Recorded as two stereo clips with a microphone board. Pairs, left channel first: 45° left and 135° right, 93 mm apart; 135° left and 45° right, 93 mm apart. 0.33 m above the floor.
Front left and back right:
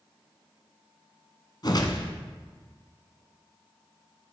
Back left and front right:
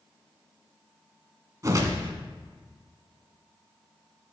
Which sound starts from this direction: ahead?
A whoosh, at 1.6 s.